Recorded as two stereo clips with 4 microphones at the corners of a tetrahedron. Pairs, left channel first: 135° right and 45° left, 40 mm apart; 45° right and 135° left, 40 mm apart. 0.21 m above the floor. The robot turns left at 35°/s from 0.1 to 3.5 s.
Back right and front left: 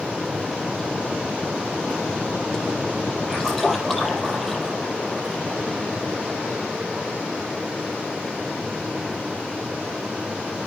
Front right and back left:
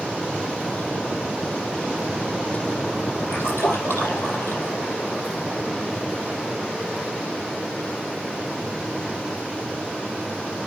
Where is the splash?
35° right, 7 m; by 4.8 s 45° right, 7 m.